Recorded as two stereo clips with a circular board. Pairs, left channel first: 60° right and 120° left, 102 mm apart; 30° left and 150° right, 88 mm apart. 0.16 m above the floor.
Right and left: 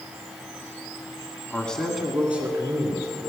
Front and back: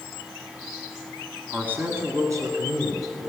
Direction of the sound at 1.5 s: 105° right.